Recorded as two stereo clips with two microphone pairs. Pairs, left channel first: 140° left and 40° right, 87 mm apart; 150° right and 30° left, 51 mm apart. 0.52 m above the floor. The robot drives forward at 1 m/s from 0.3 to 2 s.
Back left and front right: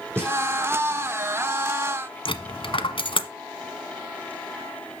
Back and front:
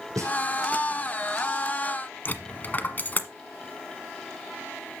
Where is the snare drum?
25° left, 7.5 m.